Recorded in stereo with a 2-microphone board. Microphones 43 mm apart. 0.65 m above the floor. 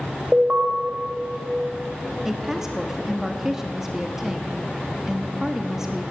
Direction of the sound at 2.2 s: 10° right (ahead or behind).